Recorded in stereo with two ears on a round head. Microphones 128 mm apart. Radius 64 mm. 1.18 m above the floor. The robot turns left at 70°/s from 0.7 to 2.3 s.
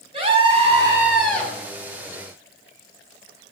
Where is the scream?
140° right, 6.5 m; by 1.5 s 160° left, 6.5 m.